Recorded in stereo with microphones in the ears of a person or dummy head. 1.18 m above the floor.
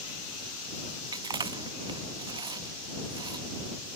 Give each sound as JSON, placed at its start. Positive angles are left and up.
{"t": 1.1, "sound": "chewing", "side_deg": -20}